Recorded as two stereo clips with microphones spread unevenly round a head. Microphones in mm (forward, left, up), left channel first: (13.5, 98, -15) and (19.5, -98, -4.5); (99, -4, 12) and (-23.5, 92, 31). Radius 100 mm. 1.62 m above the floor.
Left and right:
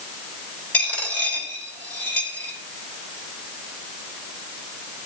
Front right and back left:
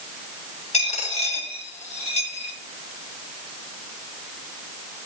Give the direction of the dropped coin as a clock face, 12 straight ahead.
12 o'clock.